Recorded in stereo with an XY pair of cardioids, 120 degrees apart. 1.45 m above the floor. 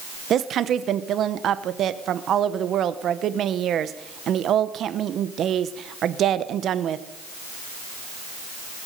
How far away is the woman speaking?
About 0.9 m.